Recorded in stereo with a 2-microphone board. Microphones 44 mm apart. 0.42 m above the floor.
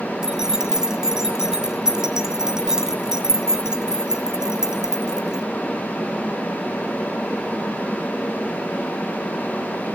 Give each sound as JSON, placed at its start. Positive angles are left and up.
{"t": 0.2, "sound": "keys jangling", "side_deg": -15, "distance_m": 2.5}